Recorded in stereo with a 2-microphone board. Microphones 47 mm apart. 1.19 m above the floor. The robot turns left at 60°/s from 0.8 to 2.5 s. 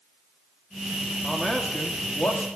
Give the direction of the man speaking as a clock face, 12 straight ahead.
6 o'clock.